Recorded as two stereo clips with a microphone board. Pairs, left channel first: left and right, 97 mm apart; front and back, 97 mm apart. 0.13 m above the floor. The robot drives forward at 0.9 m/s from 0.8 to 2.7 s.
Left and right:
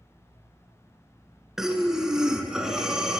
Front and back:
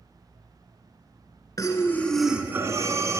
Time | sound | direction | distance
1.6 | breathing | 10° right | 0.9 m